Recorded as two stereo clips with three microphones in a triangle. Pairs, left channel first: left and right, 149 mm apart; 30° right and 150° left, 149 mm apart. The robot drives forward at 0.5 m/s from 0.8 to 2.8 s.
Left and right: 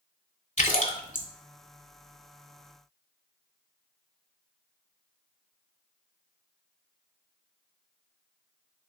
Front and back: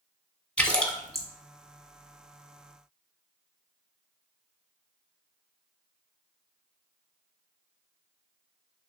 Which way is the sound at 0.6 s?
55° left.